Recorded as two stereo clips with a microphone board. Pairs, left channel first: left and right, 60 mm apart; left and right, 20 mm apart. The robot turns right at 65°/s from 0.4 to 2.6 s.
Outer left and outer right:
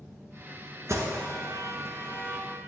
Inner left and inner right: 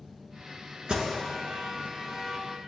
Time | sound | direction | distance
0.9 | an alarm | 50° right (ahead or behind) | 1.7 m